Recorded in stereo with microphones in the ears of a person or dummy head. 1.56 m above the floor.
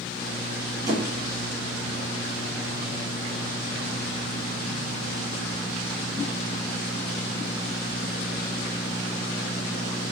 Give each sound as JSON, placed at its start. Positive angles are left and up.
{"t": 0.9, "sound": "a squeak", "side_deg": -25, "distance_m": 1.9}